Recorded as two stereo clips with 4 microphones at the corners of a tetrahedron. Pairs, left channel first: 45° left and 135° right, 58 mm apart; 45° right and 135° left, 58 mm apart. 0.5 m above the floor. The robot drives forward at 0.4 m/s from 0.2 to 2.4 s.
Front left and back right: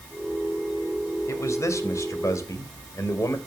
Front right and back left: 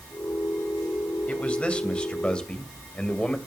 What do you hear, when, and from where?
1.3 s a man speaking: 25° left, 3 m